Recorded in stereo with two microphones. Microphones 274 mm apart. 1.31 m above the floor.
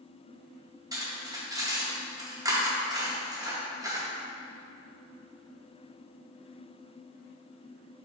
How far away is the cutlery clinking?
About 0.7 m.